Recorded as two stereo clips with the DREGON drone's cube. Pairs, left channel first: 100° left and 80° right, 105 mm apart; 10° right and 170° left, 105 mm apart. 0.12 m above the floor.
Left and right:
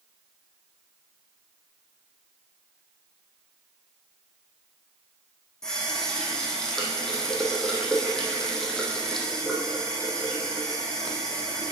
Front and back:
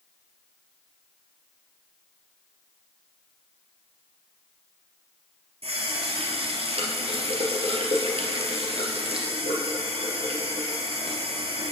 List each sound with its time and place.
5.6 s a running tap: 175° right, 2 m